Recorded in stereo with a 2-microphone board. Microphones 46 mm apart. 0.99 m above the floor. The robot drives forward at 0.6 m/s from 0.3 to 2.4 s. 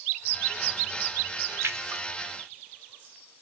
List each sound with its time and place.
1.6 s a splash: 70° right (ahead or behind), 0.6 m; by 2.0 s 85° right, 0.6 m